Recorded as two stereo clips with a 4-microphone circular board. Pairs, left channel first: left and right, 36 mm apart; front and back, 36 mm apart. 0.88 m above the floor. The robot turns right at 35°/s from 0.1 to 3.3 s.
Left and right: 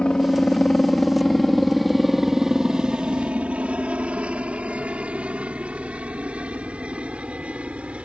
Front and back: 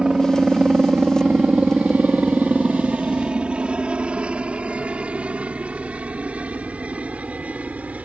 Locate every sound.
0.0 s a helicopter: 130° left; by 8.1 s 140° right